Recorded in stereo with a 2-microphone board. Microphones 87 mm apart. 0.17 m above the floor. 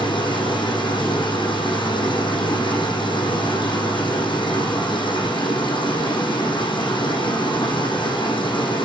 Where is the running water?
70° left (ahead or behind), 7 m.